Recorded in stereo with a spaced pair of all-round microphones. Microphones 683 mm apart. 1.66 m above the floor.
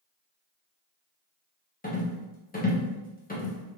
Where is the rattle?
15° left (ahead or behind), 0.7 m.